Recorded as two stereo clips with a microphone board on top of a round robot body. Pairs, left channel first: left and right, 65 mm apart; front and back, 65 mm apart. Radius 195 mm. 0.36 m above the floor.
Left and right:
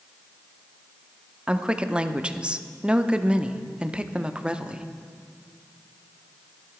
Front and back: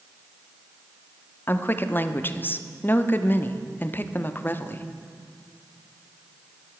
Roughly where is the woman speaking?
Ahead right.